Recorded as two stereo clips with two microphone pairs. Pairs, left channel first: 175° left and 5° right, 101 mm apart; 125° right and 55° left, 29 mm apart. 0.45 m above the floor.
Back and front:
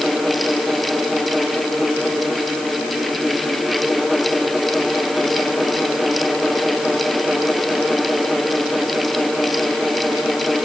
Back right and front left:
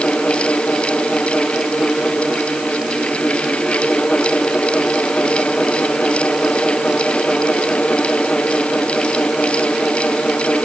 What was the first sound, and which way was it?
Only background noise.